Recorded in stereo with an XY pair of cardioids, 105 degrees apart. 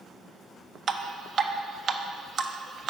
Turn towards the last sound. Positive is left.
turn(degrees=-50)